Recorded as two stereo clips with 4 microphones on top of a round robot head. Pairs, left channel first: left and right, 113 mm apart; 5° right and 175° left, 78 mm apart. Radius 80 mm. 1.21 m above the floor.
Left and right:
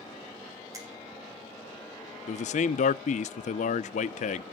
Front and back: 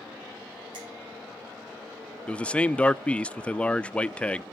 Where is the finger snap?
150° right, 4 m.